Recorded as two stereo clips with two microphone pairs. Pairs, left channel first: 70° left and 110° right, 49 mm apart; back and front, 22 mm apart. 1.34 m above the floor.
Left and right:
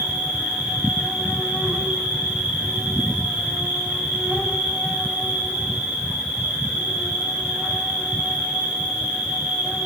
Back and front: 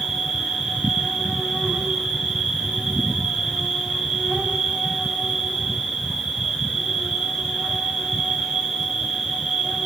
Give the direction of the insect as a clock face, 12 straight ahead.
1 o'clock.